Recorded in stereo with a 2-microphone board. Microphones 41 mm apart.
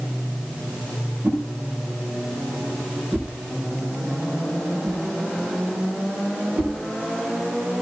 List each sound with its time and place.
1.2 s a whoosh: 65° right (ahead or behind), 5 m